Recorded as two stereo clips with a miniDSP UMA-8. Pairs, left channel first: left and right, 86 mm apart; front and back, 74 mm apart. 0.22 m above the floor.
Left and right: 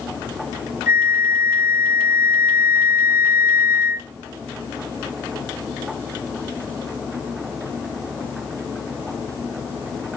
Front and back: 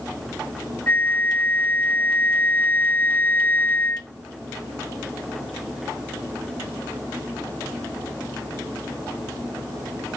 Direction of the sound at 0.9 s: 45° right.